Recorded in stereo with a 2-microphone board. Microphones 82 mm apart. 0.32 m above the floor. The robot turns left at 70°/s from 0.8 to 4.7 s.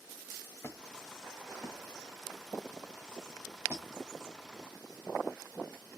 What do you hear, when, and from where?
0.6 s a squeak: 35° left (ahead or behind), 1.0 m; by 3.9 s 20° right (ahead or behind), 1.0 m